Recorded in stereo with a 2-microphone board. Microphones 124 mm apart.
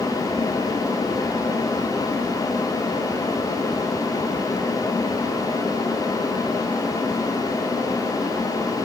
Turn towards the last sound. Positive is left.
No sound to turn to.